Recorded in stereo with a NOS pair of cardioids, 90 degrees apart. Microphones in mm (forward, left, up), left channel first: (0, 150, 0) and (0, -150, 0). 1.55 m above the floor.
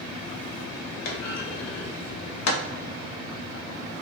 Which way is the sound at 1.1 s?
65° left.